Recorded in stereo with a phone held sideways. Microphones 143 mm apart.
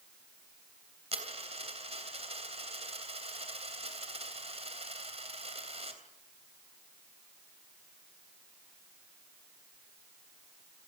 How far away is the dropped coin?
About 3 m.